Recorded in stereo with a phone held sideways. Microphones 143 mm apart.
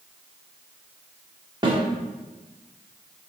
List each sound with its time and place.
1.6 s a snare drum: 35° right (ahead or behind), 1.6 m